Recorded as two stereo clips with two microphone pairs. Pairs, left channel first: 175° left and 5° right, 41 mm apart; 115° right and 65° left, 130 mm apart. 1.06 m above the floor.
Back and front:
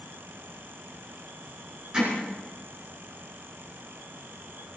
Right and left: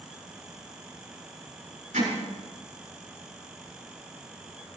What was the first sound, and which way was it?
Hammering, 60° left.